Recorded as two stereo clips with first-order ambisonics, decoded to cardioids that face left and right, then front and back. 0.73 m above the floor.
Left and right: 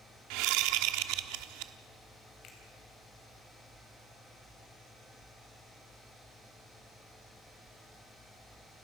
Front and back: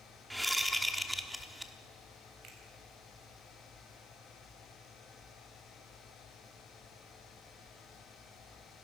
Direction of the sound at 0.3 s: 95° right.